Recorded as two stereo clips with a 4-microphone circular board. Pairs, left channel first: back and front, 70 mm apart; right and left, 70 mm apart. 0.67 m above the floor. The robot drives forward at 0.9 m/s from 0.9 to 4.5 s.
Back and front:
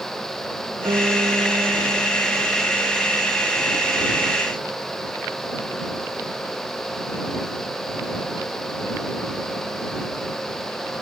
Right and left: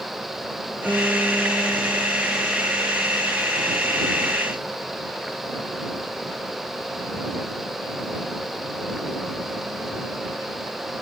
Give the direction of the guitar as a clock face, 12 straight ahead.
12 o'clock.